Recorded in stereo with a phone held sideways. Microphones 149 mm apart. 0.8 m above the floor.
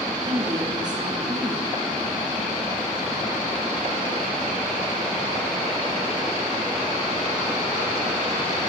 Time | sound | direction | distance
0.2 | a woman speaking | 35° right (ahead or behind) | 6 m